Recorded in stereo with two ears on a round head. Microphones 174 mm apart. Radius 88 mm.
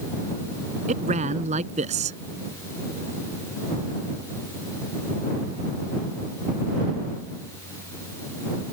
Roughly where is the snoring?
No snoring in this recording.